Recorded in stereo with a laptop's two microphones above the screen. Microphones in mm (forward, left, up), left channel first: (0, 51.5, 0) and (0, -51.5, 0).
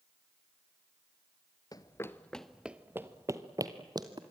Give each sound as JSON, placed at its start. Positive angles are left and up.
{"t": 1.7, "sound": "running footsteps", "side_deg": 40, "distance_m": 1.1}